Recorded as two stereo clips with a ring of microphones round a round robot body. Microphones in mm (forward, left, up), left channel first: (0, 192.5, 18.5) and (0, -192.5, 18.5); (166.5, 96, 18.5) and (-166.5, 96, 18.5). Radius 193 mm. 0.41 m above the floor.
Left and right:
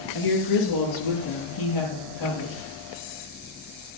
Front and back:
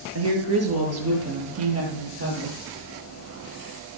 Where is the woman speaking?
130° left, 8 m.